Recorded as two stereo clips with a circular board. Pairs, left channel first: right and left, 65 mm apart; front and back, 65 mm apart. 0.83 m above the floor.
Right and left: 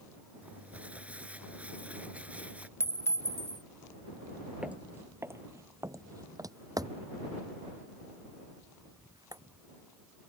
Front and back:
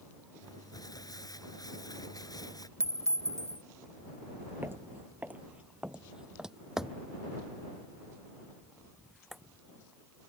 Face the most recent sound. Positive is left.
turn(degrees=90)